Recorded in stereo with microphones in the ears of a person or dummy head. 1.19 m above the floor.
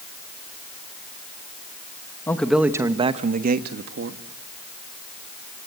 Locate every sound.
2.3 s a man speaking: 10° left (ahead or behind), 1.1 m; by 4.2 s 75° right (ahead or behind), 1.5 m